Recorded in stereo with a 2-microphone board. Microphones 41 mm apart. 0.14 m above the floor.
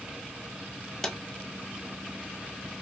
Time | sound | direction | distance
1.0 | a drawer | 15° left (ahead or behind) | 1.3 m